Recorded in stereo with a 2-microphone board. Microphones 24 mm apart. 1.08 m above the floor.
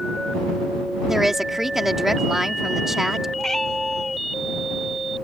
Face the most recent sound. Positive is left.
turn(degrees=20)  # may be behind; listen again after turning